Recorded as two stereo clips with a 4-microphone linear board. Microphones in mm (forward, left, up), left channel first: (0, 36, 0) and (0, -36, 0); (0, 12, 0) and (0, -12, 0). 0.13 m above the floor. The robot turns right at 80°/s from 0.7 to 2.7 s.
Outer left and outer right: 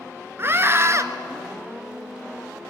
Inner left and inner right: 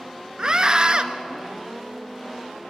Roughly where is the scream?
Right.